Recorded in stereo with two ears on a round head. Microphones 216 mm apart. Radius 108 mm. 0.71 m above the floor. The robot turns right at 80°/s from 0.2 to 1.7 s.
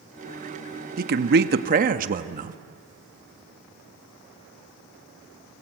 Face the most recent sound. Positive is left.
turn(degrees=-60)